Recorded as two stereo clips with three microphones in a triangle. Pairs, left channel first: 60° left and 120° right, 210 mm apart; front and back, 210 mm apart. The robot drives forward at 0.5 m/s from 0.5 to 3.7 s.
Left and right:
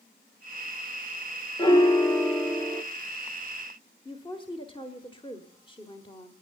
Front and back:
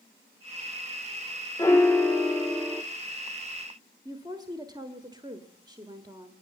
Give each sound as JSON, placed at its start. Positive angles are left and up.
{"t": 1.6, "sound": "a piano", "azimuth_deg": 45, "distance_m": 1.5}
{"t": 4.0, "sound": "a woman speaking", "azimuth_deg": 115, "distance_m": 1.3}